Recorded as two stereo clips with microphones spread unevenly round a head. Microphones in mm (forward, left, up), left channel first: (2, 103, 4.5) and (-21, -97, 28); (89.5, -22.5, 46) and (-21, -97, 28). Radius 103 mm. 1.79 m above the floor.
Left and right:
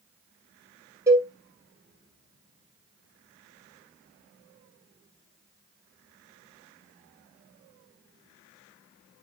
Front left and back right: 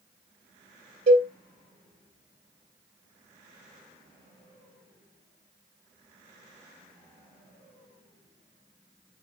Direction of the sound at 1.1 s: 160° right.